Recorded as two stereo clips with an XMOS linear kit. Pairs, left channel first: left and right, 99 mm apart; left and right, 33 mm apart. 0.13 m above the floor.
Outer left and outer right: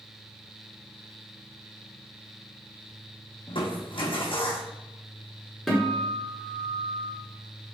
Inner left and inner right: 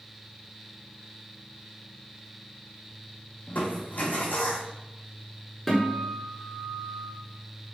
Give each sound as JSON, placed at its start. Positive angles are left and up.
{"t": 3.5, "sound": "crushing", "side_deg": 65, "distance_m": 1.4}
{"t": 5.7, "sound": "a guitar", "side_deg": 5, "distance_m": 1.6}